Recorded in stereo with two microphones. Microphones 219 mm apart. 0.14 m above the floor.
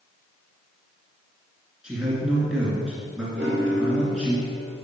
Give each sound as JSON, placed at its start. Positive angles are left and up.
{"t": 1.8, "sound": "a man speaking", "side_deg": -5, "distance_m": 2.0}
{"t": 3.4, "sound": "a piano", "side_deg": -50, "distance_m": 3.0}